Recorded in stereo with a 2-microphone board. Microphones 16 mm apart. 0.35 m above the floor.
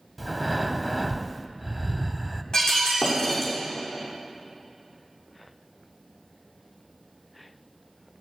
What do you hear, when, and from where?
0.2 s breathing: 5° left (ahead or behind), 0.7 m
2.5 s breaking glass: 50° left (ahead or behind), 6 m